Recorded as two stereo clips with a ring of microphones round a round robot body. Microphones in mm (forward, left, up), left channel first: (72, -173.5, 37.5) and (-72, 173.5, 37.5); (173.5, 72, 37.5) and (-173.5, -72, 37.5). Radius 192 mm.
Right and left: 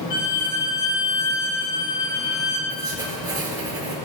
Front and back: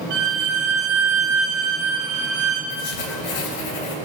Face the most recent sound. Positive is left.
turn(degrees=30)